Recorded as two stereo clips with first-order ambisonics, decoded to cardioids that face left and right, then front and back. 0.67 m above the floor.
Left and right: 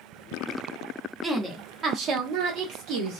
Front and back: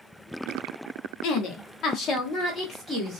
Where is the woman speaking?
10° right, 1.0 m; by 3.2 s 85° right, 1.4 m.